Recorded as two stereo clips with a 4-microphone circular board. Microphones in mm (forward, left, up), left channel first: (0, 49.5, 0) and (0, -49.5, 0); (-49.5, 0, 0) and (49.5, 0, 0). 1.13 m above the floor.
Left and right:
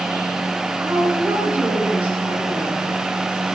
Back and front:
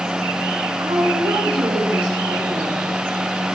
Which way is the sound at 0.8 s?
15° right.